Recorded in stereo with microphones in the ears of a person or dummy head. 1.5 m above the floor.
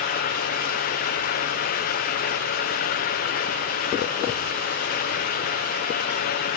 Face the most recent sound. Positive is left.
No sound to turn to.